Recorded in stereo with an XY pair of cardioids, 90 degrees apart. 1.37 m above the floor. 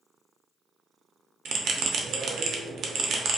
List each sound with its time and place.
1.4 s a bell: 70° right, 0.5 m